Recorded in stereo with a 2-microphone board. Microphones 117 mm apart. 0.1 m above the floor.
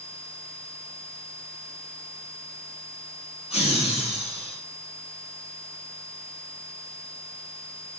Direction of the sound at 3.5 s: 65° left (ahead or behind).